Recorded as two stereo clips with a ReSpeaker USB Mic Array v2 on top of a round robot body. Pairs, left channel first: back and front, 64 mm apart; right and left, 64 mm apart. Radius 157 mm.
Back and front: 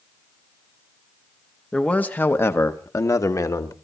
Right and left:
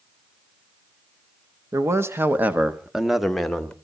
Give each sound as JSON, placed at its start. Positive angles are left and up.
{"t": 1.7, "sound": "a man speaking", "azimuth_deg": 110, "distance_m": 1.8}